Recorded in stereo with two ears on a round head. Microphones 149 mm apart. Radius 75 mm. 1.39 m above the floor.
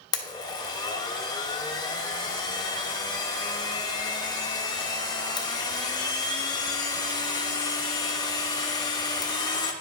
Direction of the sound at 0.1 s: 25° left (ahead or behind).